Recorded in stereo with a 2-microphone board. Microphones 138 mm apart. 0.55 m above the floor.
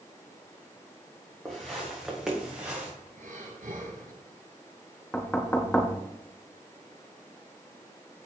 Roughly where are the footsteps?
Centre.